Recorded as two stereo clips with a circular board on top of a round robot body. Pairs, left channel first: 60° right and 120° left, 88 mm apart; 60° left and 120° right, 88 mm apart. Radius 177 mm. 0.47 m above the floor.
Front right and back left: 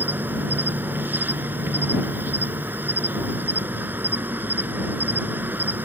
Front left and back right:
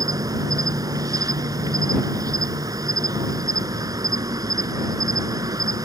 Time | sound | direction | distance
0.0 | an insect | 170° right | ?